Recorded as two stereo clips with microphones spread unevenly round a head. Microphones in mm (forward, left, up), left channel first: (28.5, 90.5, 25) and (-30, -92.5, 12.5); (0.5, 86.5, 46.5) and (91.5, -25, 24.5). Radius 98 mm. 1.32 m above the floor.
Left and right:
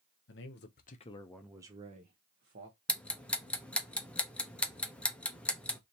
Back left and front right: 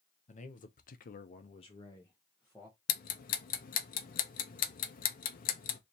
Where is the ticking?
160° left, 0.6 m.